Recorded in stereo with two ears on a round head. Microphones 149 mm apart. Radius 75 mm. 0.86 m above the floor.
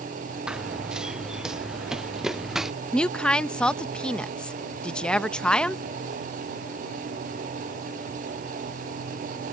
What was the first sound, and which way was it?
Running footsteps, 5° right (ahead or behind).